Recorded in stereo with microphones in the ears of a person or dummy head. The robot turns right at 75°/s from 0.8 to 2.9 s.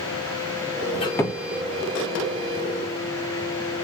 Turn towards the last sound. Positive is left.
turn(degrees=-65)